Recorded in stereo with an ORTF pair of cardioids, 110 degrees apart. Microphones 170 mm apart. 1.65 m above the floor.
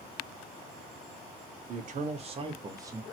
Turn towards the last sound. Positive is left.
turn(degrees=-15)